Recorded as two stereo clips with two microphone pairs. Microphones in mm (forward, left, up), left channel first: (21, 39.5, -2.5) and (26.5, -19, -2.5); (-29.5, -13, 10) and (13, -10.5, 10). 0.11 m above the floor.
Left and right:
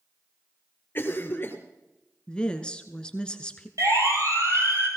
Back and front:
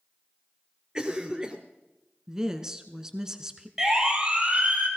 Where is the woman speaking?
50° left, 1.1 m.